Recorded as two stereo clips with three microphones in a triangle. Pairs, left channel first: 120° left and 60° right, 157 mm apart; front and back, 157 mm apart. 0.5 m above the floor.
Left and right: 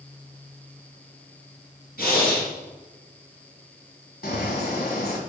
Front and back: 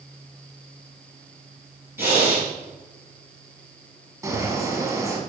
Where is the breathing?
105° left, 3.5 m.